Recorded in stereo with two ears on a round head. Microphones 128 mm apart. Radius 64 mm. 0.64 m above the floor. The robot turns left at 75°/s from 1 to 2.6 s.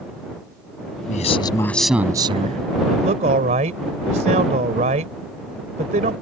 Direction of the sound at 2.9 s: 55° right (ahead or behind).